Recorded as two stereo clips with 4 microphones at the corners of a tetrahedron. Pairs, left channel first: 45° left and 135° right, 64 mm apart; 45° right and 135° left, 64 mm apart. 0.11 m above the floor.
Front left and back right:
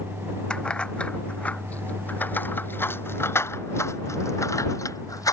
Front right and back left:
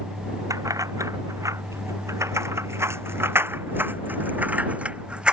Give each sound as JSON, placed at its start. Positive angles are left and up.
{"t": 0.5, "sound": "keys jangling", "azimuth_deg": 120}